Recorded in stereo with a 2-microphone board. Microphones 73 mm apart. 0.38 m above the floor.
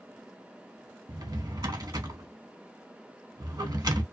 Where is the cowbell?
No cowbell in this recording.